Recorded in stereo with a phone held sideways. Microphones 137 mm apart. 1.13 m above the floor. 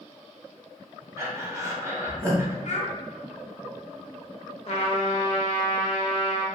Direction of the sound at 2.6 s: 55° left (ahead or behind).